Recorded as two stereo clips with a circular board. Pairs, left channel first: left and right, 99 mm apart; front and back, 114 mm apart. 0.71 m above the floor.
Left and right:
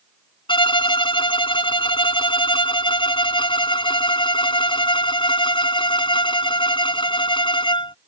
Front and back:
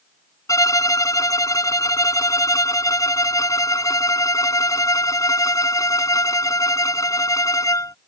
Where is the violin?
60° left.